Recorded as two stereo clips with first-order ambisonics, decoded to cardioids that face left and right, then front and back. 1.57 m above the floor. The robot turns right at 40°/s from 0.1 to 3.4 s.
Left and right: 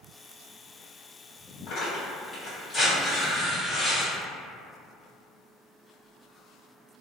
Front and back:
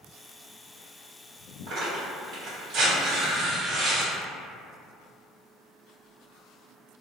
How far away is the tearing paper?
About 1.6 m.